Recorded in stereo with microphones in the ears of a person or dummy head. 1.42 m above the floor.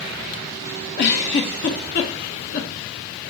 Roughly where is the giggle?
Left.